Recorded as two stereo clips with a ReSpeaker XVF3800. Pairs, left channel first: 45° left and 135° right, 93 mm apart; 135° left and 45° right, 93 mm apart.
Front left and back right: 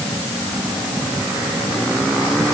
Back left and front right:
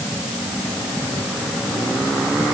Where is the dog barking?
I don't hear a dog barking.